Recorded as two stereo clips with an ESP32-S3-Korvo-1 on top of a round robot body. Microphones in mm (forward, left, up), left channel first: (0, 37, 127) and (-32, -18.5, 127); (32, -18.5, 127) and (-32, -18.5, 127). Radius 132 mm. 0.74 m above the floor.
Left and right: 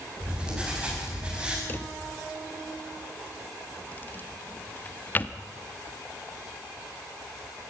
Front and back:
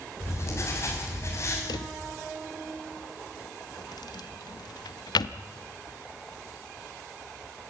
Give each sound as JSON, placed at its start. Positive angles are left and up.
{"t": 0.2, "sound": "writing", "azimuth_deg": -45, "distance_m": 6.5}
{"t": 1.7, "sound": "a drawer", "azimuth_deg": 0, "distance_m": 0.8}